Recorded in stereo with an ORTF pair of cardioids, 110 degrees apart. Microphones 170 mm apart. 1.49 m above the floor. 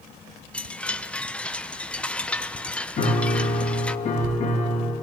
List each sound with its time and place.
0.5 s a chime: 5° left, 0.6 m
3.0 s a piano: 45° left, 2.5 m